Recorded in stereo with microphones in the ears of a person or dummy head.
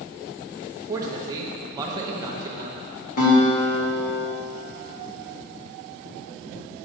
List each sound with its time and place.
0.9 s a man speaking: 15° right (ahead or behind), 0.8 m
3.2 s a guitar: 50° left (ahead or behind), 1.6 m